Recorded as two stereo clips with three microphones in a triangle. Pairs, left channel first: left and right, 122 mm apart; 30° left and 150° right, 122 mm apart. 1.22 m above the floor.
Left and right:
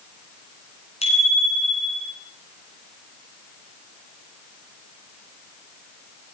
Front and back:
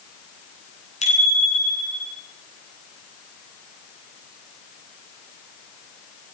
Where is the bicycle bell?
55° left, 10 m.